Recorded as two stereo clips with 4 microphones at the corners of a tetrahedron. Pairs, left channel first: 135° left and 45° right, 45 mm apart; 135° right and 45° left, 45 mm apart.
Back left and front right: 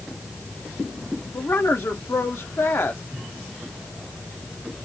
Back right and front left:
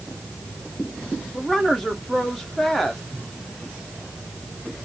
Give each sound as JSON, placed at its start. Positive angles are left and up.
{"t": 1.3, "sound": "a woman speaking", "azimuth_deg": 140, "distance_m": 1.6}